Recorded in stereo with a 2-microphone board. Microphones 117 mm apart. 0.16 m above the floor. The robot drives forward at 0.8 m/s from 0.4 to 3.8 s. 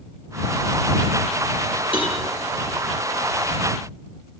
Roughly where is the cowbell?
Left.